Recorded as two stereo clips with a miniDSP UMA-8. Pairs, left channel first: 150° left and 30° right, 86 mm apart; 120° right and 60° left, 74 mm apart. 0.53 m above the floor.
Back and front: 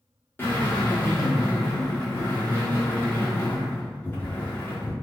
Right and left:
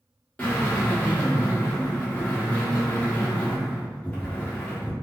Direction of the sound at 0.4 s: 165° right.